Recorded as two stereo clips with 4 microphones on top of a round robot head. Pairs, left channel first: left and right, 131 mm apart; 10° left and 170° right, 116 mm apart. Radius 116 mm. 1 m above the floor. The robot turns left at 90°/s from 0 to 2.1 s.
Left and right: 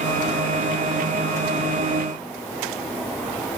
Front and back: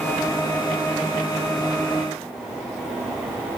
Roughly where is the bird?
No bird in this recording.